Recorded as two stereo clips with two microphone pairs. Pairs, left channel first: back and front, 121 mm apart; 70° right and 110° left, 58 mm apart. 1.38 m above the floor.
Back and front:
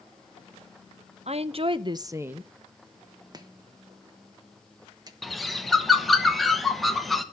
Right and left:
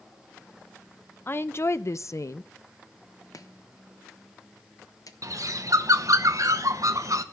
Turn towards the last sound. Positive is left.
turn(degrees=90)